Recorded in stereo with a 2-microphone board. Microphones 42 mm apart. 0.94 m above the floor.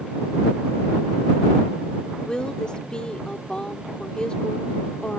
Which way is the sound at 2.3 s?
20° left (ahead or behind).